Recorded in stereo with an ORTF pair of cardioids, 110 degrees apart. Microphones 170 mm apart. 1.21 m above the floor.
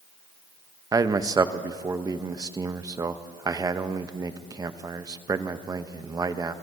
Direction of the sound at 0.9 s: 20° right.